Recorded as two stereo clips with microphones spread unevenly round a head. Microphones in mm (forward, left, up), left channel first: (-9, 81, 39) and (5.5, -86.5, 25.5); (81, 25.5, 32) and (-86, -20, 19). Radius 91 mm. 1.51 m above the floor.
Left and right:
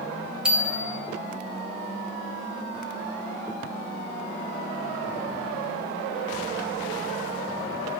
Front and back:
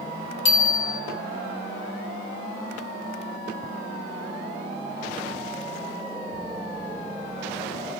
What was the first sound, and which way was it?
A bicycle bell, straight ahead.